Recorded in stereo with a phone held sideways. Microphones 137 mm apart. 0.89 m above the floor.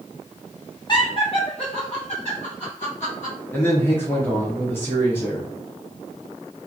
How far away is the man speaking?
About 0.9 m.